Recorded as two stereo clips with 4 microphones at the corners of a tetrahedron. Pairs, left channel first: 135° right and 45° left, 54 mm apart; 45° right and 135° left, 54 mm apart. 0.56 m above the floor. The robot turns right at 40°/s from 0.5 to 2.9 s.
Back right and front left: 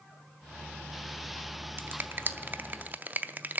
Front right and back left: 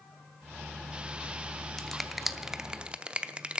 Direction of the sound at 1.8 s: 30° left.